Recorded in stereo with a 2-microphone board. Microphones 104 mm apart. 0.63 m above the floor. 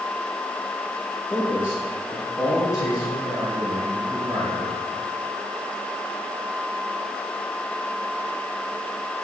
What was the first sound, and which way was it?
A man speaking, 25° left (ahead or behind).